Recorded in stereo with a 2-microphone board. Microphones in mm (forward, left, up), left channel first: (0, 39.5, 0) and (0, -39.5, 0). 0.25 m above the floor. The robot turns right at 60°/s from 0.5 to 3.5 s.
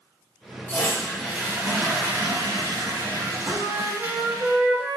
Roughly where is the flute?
Right.